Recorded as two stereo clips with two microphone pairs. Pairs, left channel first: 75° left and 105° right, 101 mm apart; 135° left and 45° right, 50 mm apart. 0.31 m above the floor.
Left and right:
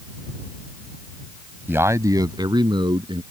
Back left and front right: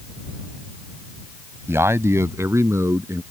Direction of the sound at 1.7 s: 45° right.